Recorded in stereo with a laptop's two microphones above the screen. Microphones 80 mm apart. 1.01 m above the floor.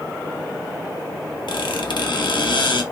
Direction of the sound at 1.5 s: 75° left (ahead or behind).